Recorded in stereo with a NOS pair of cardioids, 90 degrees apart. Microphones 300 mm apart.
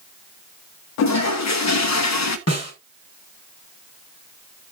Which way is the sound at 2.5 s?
55° left.